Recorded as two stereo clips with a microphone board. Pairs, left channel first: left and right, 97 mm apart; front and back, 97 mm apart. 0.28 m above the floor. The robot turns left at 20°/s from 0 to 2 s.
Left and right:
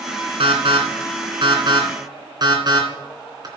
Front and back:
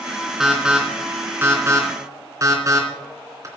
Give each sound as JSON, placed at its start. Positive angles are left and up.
{"t": 0.4, "sound": "an alarm", "azimuth_deg": -95, "distance_m": 3.0}